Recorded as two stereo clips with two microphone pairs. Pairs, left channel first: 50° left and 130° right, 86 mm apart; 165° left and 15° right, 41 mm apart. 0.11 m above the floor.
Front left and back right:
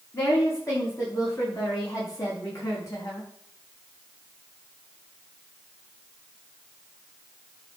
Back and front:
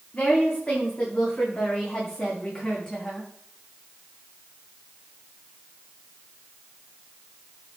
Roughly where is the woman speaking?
Left.